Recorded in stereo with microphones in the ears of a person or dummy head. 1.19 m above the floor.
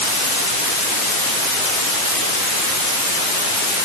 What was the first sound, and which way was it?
Only background noise.